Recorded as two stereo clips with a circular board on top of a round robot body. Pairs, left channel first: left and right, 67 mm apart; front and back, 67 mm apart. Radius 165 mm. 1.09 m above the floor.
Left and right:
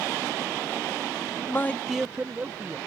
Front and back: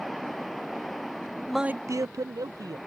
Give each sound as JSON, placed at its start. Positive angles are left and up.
{"t": 1.5, "sound": "a man speaking", "azimuth_deg": 75}